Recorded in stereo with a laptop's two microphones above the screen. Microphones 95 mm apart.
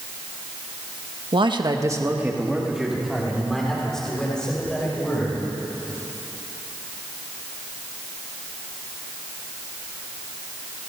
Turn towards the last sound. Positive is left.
turn(degrees=10)  # may be behind; listen again after turning